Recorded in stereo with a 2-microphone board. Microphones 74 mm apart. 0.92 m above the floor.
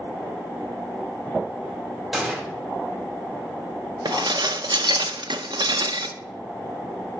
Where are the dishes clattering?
75° right (ahead or behind), 0.6 m.